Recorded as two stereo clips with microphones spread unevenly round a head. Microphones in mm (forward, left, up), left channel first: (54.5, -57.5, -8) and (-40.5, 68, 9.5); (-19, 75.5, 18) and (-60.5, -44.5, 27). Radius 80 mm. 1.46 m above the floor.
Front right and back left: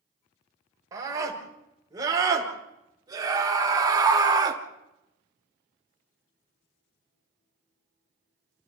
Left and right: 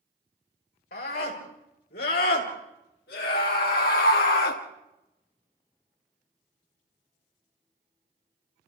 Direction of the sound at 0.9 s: 55° left.